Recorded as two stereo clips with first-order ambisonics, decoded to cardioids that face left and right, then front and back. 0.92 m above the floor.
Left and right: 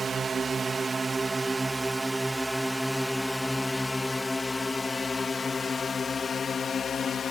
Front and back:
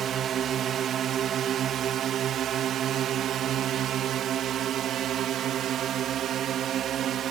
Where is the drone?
150° right; by 7.3 s 140° left.